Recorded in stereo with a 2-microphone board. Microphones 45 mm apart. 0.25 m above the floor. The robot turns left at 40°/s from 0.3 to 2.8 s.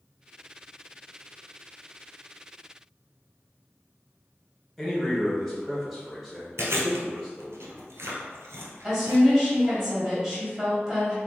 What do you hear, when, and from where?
4.8 s a man speaking: centre (ahead or behind), 1.1 m
6.6 s chewing: 80° right, 1.1 m
8.8 s a woman speaking: 10° right (ahead or behind), 1.4 m